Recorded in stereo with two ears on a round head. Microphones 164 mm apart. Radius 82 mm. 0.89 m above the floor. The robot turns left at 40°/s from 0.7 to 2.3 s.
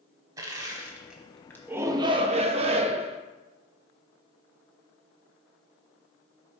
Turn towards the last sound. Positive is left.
turn(degrees=-35)  # may be behind; listen again after turning